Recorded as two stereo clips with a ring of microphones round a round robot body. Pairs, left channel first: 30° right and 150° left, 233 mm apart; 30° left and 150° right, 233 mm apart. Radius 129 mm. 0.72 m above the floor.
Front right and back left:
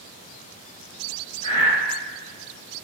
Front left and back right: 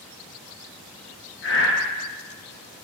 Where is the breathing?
30° left, 0.6 m.